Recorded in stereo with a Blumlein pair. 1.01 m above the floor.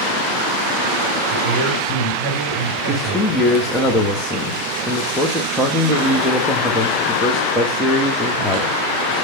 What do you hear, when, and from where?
1.3 s a man speaking: 15° right, 6 m
2.9 s a man speaking: 5° left, 1.3 m